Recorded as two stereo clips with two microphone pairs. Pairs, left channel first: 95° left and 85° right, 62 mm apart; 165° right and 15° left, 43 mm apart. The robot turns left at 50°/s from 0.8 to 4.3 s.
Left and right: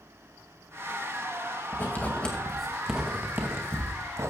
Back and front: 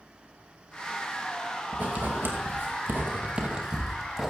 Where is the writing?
50° left, 2.5 m; by 4.3 s 80° right, 2.5 m.